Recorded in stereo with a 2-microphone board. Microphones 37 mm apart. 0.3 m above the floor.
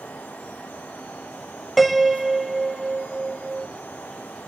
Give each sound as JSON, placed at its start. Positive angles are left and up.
{"t": 1.8, "sound": "a piano", "side_deg": 0, "distance_m": 0.8}